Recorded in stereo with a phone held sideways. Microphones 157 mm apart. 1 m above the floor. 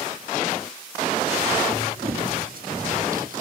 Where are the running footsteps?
75° right (ahead or behind), 4 m; by 3.4 s 60° right (ahead or behind), 2.5 m.